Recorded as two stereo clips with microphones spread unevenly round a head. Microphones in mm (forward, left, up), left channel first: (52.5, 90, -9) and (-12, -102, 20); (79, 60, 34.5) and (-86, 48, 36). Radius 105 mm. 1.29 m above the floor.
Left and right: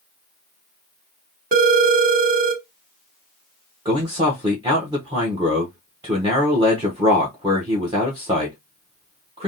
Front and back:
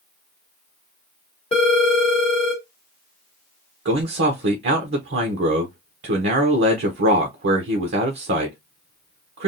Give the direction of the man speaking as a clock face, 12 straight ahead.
6 o'clock.